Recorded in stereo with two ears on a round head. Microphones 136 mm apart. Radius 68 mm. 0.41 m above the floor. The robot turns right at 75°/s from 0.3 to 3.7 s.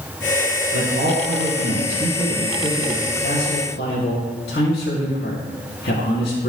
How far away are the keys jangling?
No keys jangling in this recording.